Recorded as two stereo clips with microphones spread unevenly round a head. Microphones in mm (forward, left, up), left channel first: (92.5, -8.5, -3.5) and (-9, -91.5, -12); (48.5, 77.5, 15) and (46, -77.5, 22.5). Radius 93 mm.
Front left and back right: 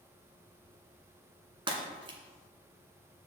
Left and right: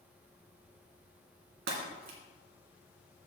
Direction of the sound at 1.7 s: 85° right.